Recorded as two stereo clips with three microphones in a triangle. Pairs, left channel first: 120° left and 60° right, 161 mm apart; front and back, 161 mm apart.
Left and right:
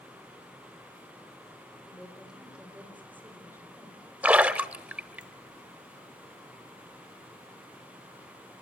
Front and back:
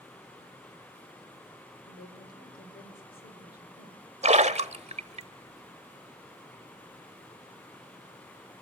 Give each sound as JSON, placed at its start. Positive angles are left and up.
{"t": 1.9, "sound": "a woman speaking", "azimuth_deg": 30, "distance_m": 4.5}
{"t": 4.2, "sound": "a splash", "azimuth_deg": -140, "distance_m": 1.0}